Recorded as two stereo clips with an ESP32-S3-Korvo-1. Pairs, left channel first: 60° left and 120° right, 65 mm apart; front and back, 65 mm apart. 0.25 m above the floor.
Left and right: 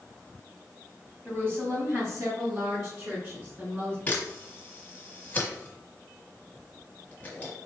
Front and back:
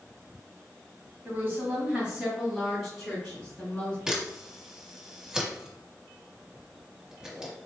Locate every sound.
1.2 s a woman speaking: 155° right, 1.7 m; by 4.0 s 80° right, 3 m
4.1 s a camera shutter: 110° left, 1.3 m